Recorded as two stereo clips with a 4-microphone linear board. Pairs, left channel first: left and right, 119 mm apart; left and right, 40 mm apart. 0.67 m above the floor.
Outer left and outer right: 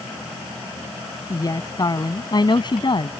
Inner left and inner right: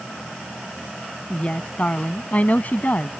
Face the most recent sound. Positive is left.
turn(degrees=45)  # may be behind; listen again after turning